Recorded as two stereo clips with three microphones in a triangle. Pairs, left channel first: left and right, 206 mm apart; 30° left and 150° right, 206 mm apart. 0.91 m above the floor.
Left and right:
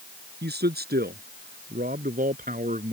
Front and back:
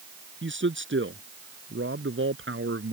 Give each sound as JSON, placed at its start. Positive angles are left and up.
{"t": 0.4, "sound": "a man speaking", "azimuth_deg": -125}